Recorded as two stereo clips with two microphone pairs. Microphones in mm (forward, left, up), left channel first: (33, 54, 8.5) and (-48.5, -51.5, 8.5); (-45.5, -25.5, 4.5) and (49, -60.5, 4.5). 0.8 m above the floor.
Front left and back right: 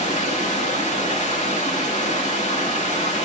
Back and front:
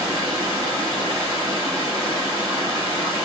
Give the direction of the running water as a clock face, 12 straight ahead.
11 o'clock.